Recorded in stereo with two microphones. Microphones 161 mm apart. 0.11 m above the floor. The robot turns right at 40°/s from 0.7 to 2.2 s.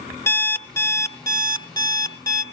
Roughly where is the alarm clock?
Centre.